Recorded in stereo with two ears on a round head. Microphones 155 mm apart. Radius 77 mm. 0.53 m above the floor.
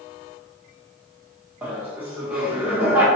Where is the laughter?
10° right (ahead or behind), 1.3 m.